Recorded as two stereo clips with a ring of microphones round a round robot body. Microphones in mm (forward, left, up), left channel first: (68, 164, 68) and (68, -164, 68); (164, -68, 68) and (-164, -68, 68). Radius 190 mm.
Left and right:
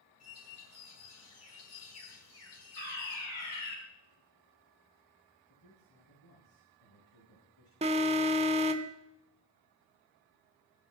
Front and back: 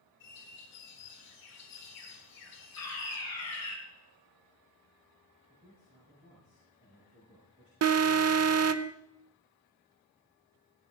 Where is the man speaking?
115° left, 6 m.